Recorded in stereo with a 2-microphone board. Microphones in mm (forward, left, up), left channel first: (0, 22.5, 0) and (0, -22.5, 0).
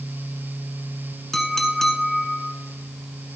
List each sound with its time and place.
1.3 s a clink: 10° left (ahead or behind), 1.5 m